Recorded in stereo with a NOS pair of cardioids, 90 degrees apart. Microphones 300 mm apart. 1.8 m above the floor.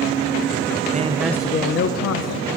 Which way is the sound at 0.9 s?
30° right.